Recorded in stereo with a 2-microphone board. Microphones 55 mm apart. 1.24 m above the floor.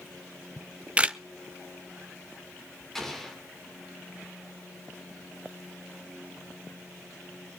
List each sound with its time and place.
0.6 s a camera shutter: 20° right (ahead or behind), 0.6 m
3.0 s an explosion: 5° left (ahead or behind), 3 m